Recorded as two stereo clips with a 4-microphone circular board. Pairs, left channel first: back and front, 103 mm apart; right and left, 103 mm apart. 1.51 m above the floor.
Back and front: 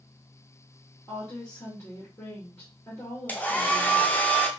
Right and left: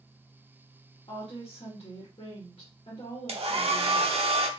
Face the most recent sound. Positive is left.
turn(degrees=105)